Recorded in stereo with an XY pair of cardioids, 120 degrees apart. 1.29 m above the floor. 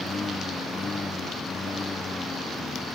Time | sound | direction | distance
0.0 | a lawn mower | 25° left | ?